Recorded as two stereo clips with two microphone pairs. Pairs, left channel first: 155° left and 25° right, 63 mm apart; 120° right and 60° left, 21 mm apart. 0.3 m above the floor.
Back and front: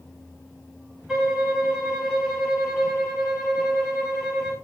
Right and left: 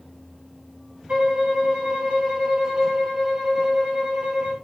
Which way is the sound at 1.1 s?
55° left.